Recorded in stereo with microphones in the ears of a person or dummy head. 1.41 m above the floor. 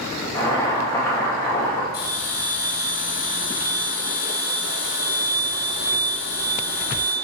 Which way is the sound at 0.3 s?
20° left (ahead or behind).